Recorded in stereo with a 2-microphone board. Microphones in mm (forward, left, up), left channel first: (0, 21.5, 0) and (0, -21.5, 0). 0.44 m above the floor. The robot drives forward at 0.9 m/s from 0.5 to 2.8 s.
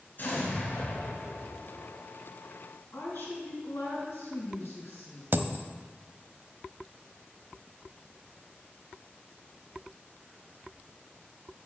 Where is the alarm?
No alarm in this recording.